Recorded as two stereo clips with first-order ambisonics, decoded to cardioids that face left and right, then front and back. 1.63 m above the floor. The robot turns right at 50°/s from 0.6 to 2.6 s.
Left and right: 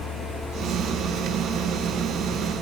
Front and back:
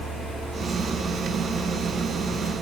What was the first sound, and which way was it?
Only background noise.